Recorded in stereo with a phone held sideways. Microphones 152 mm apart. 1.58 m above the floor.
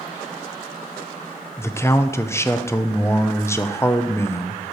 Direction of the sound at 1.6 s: 15° left (ahead or behind).